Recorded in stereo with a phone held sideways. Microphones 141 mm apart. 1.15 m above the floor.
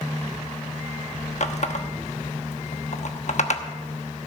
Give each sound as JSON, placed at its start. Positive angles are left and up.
{"t": 1.4, "sound": "a running tap", "side_deg": 55, "distance_m": 1.0}